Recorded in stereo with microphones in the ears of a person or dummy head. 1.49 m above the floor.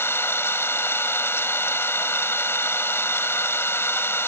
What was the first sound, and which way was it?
An engine running, 15° left (ahead or behind).